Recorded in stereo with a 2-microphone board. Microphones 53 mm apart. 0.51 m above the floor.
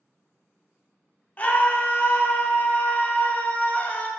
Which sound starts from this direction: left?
A scream, at 1.4 s.